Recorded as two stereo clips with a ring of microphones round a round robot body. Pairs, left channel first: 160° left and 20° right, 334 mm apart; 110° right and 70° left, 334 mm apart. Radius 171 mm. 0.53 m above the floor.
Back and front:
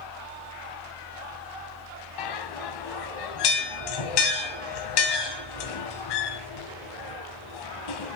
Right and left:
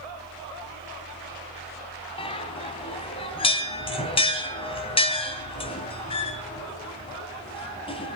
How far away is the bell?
About 2 m.